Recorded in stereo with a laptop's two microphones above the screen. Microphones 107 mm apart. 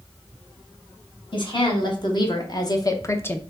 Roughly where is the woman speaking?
Left.